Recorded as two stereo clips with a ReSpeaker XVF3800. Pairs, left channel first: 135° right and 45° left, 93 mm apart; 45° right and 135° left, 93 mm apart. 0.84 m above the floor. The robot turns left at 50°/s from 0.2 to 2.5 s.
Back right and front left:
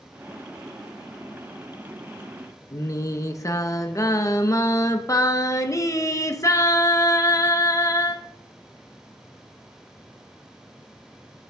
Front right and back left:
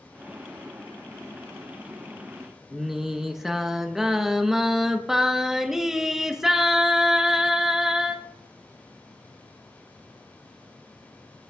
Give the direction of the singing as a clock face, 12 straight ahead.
5 o'clock.